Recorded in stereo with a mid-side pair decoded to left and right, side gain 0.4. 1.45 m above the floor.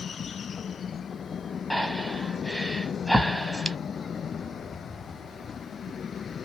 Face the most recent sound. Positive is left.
turn(degrees=5)